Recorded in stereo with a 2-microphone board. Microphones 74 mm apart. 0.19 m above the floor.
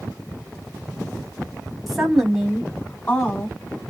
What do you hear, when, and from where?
1.9 s a woman speaking: 5° right (ahead or behind), 1.0 m; by 3.6 s 30° left (ahead or behind), 1.2 m